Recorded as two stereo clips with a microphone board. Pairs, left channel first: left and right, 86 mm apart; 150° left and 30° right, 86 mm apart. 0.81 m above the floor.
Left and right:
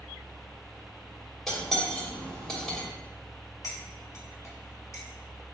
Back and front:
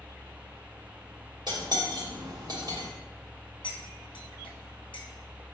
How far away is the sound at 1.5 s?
About 1.1 m.